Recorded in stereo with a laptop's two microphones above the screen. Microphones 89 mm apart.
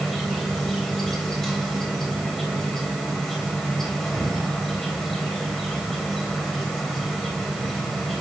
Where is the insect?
5° left (ahead or behind), 2.5 m.